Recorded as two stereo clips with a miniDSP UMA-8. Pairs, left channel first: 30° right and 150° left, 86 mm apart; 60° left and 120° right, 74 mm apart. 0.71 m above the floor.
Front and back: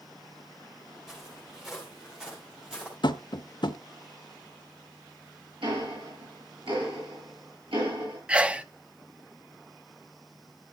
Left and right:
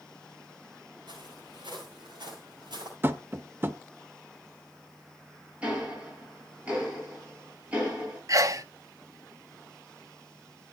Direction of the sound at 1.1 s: 125° right.